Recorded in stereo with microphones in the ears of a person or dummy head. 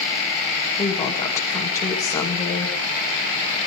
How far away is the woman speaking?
About 2.5 m.